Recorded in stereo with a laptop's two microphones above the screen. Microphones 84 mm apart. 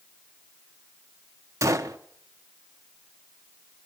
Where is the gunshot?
40° right (ahead or behind), 0.8 m.